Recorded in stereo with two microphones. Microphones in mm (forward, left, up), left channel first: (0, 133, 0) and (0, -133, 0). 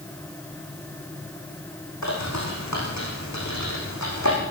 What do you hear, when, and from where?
2.0 s a bird: 80° left, 9.5 m